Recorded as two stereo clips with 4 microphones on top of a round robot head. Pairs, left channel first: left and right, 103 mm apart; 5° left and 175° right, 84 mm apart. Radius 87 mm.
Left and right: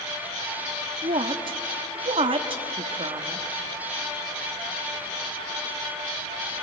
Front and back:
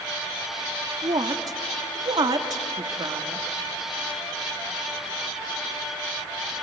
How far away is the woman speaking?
About 1.1 m.